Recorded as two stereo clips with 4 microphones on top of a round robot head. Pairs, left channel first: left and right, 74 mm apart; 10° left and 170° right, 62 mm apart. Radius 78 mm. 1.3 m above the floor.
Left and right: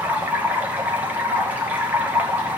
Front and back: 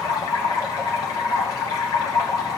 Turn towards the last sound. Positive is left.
turn(degrees=-20)